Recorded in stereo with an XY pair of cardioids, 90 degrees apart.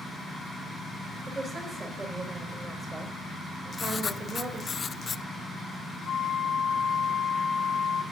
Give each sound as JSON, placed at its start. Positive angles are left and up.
{"t": 1.3, "sound": "a woman speaking", "azimuth_deg": -35, "distance_m": 5.5}
{"t": 3.7, "sound": "writing", "azimuth_deg": 40, "distance_m": 0.5}
{"t": 6.0, "sound": "a flute", "azimuth_deg": 65, "distance_m": 3.0}